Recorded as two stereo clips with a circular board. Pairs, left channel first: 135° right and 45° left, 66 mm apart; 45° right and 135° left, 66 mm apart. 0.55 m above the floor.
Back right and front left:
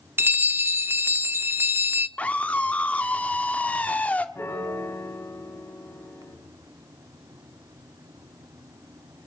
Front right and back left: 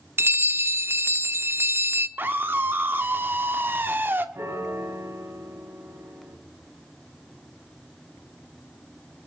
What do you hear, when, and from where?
0.2 s a bell: 90° left, 0.6 m
2.2 s a scream: 170° left, 1.3 m
4.3 s a piano: 175° left, 2.5 m